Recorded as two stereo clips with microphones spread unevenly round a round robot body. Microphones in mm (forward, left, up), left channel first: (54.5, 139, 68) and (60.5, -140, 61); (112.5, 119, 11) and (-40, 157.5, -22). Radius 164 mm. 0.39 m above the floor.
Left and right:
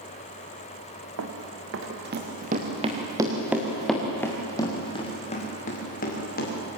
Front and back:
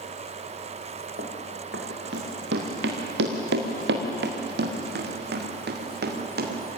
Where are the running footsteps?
130° right, 3 m; by 6.6 s 150° left, 5 m.